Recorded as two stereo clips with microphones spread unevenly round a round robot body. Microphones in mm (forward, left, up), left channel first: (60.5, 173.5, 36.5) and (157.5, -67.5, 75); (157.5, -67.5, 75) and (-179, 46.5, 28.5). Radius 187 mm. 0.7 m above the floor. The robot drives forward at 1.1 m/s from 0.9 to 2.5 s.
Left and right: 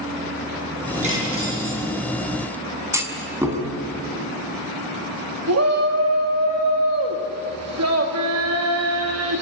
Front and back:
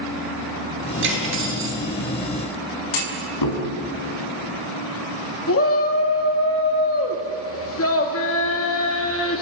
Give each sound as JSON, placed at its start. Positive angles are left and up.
{"t": 1.0, "sound": "cutlery clinking", "azimuth_deg": -140, "distance_m": 8.5}
{"t": 2.9, "sound": "a clunk", "azimuth_deg": 10, "distance_m": 5.0}
{"t": 5.5, "sound": "a shout", "azimuth_deg": -70, "distance_m": 1.8}